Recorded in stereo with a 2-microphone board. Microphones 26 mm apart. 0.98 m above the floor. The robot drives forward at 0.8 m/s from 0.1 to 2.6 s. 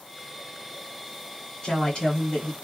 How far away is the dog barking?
No dog barking in this recording.